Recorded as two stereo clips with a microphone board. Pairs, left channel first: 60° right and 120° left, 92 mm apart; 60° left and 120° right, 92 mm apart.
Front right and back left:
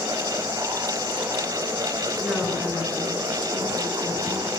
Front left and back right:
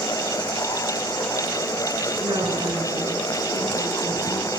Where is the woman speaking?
145° right, 8.5 m; by 4.5 s 120° right, 8.5 m.